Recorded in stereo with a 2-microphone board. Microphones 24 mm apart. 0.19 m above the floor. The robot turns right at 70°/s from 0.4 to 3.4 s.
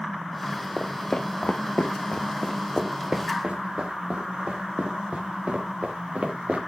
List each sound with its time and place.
0.8 s footsteps: centre (ahead or behind), 1.5 m; by 6.6 s 70° right (ahead or behind), 3.5 m